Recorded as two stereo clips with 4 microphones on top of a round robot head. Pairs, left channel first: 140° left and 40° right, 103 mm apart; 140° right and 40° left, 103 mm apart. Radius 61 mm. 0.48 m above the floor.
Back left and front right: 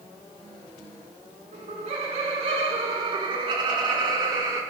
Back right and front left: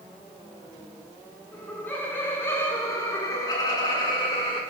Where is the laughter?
60° right, 5.5 m; by 4.6 s 95° right, 5 m.